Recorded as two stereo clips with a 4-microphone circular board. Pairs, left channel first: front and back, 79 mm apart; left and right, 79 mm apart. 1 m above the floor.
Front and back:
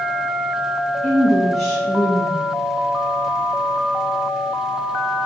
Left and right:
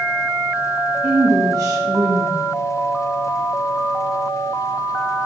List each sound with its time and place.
1.0 s a woman speaking: 90° right, 0.7 m